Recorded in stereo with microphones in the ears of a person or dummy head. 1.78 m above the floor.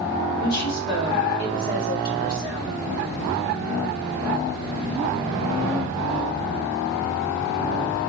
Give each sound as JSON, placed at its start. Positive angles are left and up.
{"t": 0.4, "sound": "a woman speaking", "side_deg": 55, "distance_m": 1.4}